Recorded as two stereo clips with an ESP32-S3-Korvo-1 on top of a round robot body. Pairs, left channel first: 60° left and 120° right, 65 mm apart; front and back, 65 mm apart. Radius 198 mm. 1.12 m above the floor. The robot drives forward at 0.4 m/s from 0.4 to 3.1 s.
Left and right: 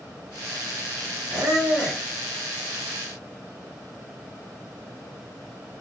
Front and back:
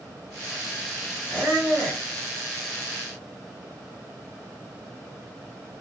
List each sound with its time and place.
1.3 s a squeak: 105° right, 1.2 m; by 2.0 s 120° right, 1.3 m